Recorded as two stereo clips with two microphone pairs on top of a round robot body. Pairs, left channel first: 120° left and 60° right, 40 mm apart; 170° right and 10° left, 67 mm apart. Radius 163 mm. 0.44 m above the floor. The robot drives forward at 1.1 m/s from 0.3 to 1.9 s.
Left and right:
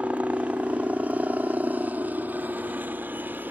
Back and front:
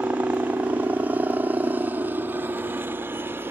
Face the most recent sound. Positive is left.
turn(degrees=-35)